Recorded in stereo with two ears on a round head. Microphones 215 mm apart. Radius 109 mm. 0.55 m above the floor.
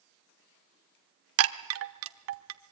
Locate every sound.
1.4 s a chime: 60° right (ahead or behind), 0.9 m